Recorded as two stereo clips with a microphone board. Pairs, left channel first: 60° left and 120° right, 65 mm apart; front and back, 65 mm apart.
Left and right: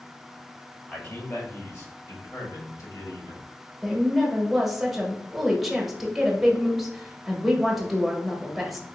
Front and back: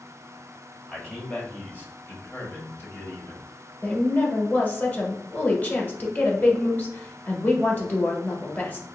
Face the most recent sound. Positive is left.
turn(degrees=-35)